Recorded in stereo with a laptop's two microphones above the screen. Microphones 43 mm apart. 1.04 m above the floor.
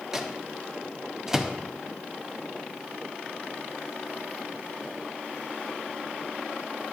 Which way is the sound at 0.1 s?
10° right (ahead or behind).